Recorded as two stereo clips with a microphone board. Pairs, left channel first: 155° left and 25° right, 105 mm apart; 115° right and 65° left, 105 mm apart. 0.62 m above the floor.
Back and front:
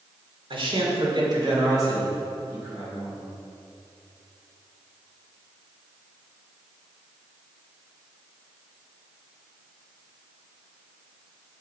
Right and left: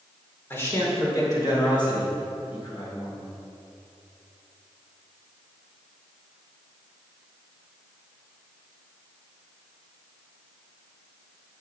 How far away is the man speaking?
About 2.0 m.